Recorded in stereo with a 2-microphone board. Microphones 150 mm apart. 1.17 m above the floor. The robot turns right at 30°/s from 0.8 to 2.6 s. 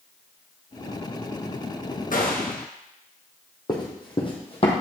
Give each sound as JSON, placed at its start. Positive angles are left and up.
{"t": 2.1, "sound": "a gunshot", "side_deg": 65, "distance_m": 1.3}
{"t": 3.7, "sound": "running footsteps", "side_deg": 30, "distance_m": 2.5}